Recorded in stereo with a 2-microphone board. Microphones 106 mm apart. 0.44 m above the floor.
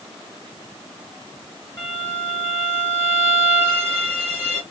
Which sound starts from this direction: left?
A violin, at 1.8 s.